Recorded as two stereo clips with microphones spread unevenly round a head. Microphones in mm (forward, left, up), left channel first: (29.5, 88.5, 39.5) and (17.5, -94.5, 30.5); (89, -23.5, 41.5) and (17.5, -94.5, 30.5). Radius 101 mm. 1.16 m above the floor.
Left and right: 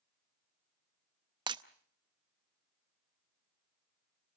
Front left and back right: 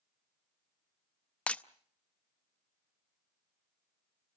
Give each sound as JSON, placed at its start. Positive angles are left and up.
{"t": 1.5, "sound": "breaking glass", "azimuth_deg": -30, "distance_m": 0.7}